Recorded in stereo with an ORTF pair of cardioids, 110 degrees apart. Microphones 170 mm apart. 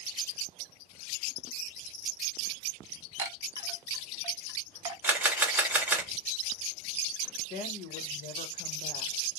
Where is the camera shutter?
10° right, 1.1 m.